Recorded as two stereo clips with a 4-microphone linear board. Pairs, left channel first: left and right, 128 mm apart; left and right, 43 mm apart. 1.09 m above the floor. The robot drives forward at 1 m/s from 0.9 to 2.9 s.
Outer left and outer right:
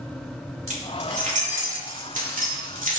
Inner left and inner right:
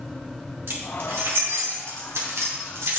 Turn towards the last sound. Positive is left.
turn(degrees=-75)  # may be behind; listen again after turning